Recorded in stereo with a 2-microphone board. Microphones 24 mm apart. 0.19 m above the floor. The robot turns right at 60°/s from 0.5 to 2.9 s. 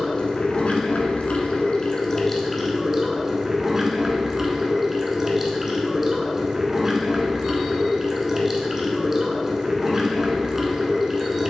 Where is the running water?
50° left, 0.7 m; by 11.5 s 170° right, 0.7 m.